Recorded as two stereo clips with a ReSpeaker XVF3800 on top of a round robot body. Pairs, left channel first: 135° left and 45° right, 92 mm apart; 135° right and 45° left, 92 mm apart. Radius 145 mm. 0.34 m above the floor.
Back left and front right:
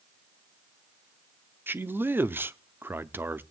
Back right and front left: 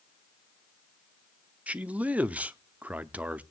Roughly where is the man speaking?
Ahead.